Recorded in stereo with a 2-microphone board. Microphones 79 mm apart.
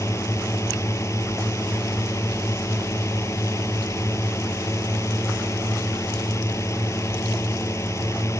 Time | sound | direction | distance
0.0 | a drone | 40° left (ahead or behind) | ?